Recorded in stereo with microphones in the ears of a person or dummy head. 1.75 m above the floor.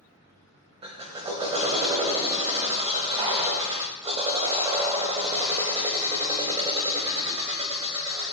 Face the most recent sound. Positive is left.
turn(degrees=-25)  # may be behind; listen again after turning